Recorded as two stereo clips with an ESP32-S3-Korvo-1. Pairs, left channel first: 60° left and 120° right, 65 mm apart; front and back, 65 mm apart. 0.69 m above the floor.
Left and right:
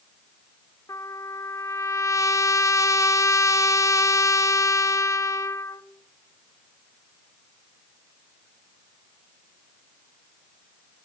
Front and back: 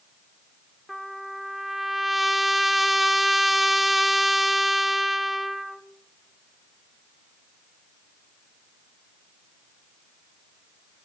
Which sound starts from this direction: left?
A trumpet, at 0.9 s.